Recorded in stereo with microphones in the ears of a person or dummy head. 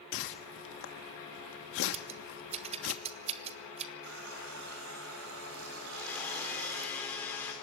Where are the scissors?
30° right (ahead or behind), 0.7 m.